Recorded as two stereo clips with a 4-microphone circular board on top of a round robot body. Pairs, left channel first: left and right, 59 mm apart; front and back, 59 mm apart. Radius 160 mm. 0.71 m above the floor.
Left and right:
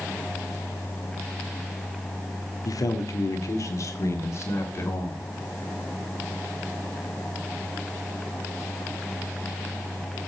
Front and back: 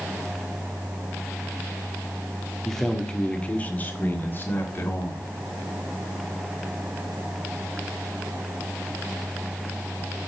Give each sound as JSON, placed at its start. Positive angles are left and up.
{"t": 2.6, "sound": "a man speaking", "azimuth_deg": 85, "distance_m": 1.7}